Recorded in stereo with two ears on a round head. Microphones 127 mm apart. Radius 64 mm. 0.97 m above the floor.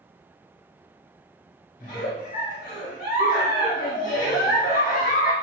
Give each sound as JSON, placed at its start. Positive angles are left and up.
{"t": 1.8, "sound": "a giggle", "side_deg": 65, "distance_m": 1.0}